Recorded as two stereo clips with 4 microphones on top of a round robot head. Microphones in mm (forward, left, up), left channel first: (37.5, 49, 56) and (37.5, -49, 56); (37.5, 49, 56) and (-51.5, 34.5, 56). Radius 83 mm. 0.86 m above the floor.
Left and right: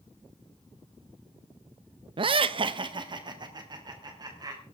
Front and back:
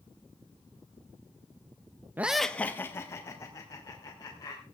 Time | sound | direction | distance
2.2 | laughter | 105° right | 0.5 m